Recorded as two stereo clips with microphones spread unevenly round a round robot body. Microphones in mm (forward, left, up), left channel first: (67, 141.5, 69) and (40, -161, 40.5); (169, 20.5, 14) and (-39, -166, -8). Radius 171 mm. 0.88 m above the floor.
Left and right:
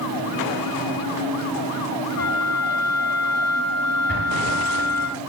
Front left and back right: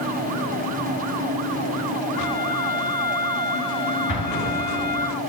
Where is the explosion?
35° left, 6.5 m.